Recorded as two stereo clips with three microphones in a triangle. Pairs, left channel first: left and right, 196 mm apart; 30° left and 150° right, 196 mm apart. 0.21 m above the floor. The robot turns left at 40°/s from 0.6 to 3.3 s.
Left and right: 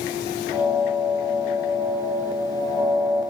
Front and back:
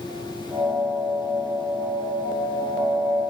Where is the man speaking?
I don't hear a man speaking.